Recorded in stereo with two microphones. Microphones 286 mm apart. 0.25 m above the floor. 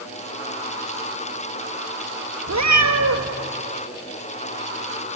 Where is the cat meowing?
75° right (ahead or behind), 2 m.